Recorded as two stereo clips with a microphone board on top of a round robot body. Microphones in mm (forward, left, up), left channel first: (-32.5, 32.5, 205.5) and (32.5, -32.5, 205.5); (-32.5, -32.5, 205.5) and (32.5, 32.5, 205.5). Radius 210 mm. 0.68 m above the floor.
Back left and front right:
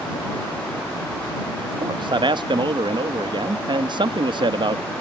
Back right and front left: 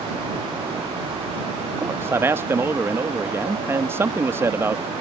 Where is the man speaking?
15° right.